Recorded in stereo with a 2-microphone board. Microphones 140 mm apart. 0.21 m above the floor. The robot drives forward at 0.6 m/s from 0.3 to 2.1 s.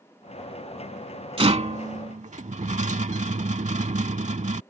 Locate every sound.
1.4 s a rattle: 45° right (ahead or behind); by 4.6 s 55° right (ahead or behind)